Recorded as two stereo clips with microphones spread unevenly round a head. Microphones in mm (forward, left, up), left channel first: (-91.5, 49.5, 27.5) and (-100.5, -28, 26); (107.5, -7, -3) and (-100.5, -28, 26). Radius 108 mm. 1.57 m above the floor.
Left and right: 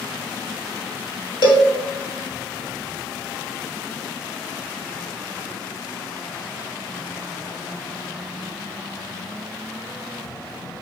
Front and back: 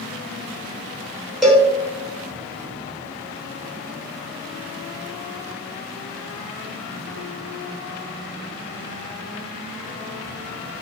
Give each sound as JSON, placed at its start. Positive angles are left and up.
{"t": 1.4, "sound": "a cowbell", "azimuth_deg": 95, "distance_m": 2.5}